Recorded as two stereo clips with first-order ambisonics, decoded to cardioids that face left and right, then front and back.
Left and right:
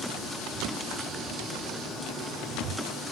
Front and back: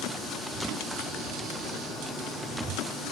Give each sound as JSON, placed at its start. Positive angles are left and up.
{"t": 0.5, "sound": "footsteps", "azimuth_deg": -145, "distance_m": 2.0}